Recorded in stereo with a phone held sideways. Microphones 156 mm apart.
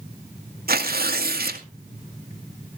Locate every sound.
0.7 s tearing paper: 80° right, 1.8 m